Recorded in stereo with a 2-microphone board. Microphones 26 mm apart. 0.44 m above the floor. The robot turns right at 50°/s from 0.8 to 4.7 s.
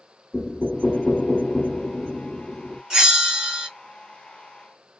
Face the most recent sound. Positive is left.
turn(degrees=-55)